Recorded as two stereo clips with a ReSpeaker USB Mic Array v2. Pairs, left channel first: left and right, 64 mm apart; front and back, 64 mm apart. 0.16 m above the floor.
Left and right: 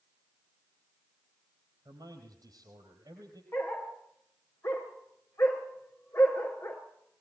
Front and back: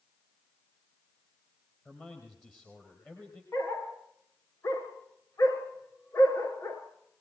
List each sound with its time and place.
1.9 s a man speaking: 65° right, 4.5 m
3.5 s a dog barking: 45° left, 5.5 m